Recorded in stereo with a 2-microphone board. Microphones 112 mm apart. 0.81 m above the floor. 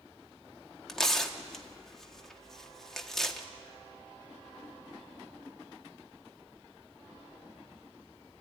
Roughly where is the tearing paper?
Centre.